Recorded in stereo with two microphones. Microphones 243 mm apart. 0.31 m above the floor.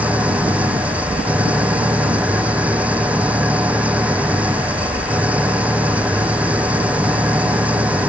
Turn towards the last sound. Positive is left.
turn(degrees=-5)  # may be behind; listen again after turning